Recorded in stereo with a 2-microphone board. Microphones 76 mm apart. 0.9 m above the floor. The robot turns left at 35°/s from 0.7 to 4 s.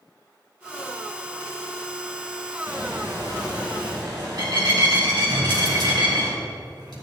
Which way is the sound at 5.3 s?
70° right (ahead or behind).